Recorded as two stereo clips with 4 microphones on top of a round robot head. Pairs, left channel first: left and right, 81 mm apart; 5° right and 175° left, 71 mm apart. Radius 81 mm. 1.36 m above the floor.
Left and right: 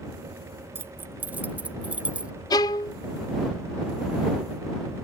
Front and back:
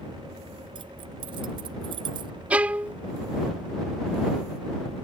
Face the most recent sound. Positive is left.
turn(degrees=110)